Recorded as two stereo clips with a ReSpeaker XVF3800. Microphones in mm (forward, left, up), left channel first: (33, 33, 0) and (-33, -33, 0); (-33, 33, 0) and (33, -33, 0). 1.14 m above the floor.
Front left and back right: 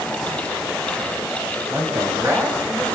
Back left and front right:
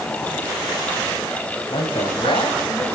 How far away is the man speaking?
About 7.5 m.